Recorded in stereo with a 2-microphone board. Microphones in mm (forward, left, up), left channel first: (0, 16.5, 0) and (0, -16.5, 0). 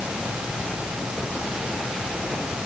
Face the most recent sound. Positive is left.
No sound to turn to.